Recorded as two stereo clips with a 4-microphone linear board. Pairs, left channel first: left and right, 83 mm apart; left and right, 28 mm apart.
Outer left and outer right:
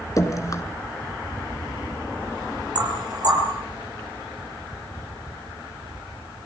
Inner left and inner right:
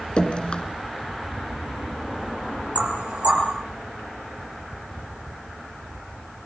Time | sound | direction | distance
0.2 | dripping | 40° left (ahead or behind) | 2.5 m
2.8 | knocking | 55° right (ahead or behind) | 5 m